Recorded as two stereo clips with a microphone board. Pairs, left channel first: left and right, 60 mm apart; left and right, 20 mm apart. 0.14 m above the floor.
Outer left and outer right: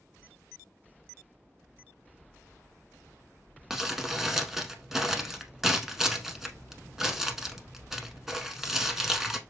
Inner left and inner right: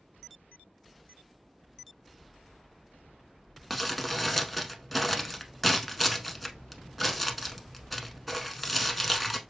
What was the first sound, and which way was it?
Crumpling, 5° right (ahead or behind).